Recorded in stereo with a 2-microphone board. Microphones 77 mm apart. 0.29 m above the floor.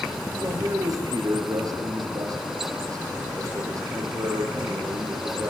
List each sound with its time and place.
0.4 s a man speaking: 45° right (ahead or behind), 5.5 m